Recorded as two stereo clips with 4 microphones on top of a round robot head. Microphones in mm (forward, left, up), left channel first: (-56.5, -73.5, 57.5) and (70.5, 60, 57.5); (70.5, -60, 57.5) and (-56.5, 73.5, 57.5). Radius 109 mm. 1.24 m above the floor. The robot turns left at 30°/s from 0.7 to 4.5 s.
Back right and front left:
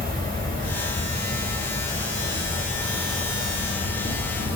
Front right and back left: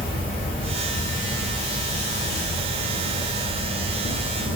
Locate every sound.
0.0 s an insect: 10° left, 2 m; by 4.6 s 105° right, 2 m